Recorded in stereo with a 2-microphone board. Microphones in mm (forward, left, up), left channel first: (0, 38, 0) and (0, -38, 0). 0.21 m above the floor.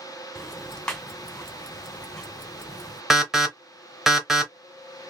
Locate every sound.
0.3 s ticking: 10° left (ahead or behind), 1.5 m
3.1 s an alarm: 5° right (ahead or behind), 1.0 m